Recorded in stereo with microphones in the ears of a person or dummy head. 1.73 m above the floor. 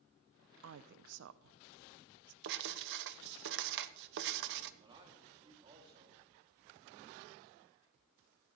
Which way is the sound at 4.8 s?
25° right (ahead or behind).